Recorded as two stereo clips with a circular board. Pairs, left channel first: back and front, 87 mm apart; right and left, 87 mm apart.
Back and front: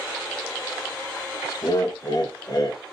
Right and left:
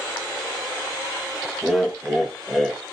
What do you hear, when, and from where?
1.6 s laughter: straight behind, 0.5 m